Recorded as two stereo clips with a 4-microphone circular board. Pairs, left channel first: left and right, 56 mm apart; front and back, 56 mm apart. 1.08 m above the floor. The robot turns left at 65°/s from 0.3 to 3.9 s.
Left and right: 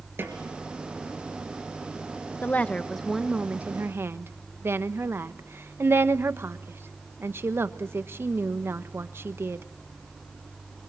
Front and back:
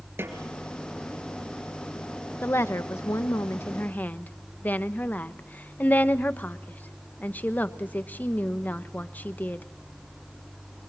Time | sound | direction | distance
0.2 | a snare drum | 135° right | 3 m
2.4 | a woman speaking | 40° left | 1.0 m